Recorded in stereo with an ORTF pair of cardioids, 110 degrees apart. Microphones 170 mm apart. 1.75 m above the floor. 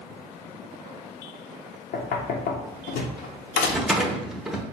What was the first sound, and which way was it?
Knocking, 65° left.